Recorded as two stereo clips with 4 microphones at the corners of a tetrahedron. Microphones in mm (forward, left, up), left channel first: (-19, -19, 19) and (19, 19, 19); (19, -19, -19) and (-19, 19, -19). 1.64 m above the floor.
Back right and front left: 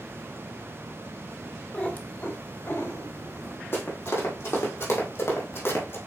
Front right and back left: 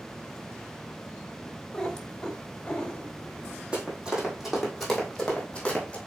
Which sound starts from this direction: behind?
Running footsteps, at 3.7 s.